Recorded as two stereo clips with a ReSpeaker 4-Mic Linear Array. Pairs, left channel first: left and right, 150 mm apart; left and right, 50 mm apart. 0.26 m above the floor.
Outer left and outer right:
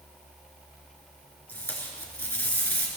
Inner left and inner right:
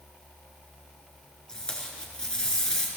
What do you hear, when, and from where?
1.5 s tape being pulled: 15° left (ahead or behind), 4 m